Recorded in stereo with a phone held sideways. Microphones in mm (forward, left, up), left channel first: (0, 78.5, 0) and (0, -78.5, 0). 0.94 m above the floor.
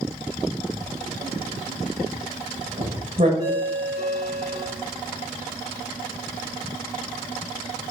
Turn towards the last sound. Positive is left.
turn(degrees=85)